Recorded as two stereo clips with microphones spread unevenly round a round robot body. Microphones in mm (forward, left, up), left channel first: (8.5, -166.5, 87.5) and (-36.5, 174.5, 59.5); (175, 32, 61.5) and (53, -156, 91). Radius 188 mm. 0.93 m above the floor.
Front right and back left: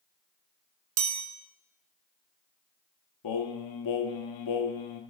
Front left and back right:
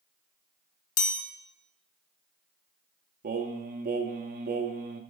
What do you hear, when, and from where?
1.0 s a chime: 45° left, 0.8 m
3.2 s singing: 95° right, 0.5 m